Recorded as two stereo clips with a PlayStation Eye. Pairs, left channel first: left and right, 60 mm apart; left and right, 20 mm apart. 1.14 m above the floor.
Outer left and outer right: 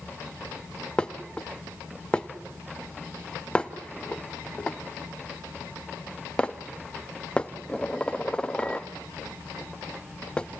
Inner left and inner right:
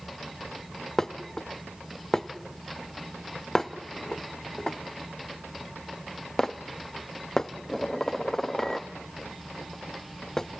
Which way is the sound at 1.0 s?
15° left (ahead or behind).